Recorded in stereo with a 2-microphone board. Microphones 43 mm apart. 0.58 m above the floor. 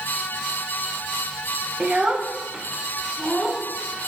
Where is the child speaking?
20° right (ahead or behind), 0.5 m; by 4.1 s 15° right (ahead or behind), 1.5 m.